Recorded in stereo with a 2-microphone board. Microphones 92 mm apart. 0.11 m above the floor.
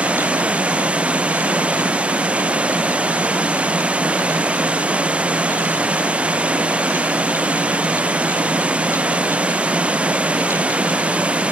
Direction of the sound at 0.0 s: 15° right (ahead or behind).